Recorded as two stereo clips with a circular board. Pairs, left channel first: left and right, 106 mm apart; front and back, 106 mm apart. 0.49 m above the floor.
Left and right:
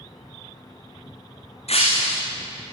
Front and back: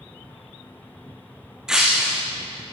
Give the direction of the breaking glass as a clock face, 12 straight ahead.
9 o'clock.